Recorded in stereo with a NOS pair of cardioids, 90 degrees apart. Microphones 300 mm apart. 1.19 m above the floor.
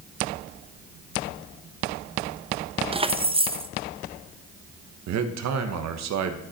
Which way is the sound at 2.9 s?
20° right.